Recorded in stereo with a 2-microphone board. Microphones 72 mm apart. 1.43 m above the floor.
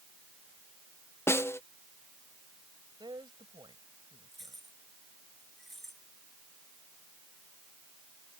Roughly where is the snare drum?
Left.